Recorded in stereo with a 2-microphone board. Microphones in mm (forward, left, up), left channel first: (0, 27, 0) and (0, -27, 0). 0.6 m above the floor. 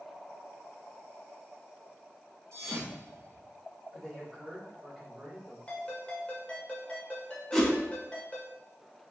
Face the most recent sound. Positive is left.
turn(degrees=10)  # may be behind; listen again after turning